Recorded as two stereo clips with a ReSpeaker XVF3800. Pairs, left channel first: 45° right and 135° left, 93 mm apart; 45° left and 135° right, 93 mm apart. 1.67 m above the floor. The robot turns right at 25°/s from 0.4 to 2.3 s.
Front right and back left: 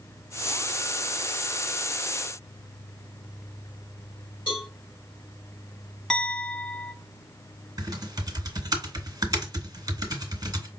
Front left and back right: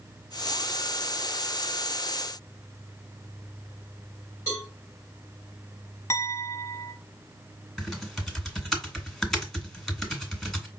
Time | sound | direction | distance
4.5 | a cowbell | 15° right | 4 m
6.1 | a clink | 35° left | 0.6 m
7.8 | typing on a keyboard | 130° left | 1.5 m